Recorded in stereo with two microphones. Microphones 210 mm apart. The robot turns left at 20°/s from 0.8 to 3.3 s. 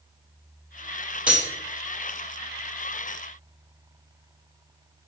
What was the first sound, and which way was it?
Cutlery clinking, 5° right (ahead or behind).